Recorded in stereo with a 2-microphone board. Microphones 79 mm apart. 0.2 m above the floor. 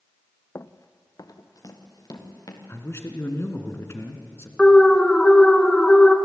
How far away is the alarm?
About 1.2 m.